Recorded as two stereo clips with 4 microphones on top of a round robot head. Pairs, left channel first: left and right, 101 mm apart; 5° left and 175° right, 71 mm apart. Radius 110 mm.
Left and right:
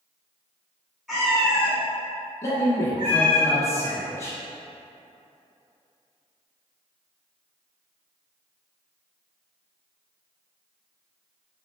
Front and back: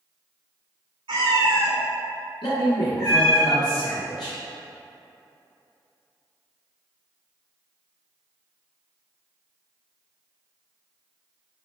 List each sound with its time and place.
1.1 s a cat meowing: straight behind, 1.1 m; by 3.4 s 40° right, 1.9 m
2.4 s a man speaking: 30° left, 1.1 m